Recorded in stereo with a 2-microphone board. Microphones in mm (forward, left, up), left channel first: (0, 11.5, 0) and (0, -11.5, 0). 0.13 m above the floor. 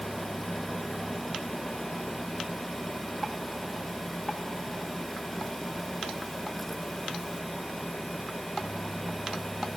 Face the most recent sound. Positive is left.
No sound to turn to.